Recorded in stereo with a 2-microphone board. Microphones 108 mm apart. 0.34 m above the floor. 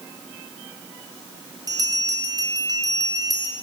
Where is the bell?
35° right (ahead or behind), 3 m.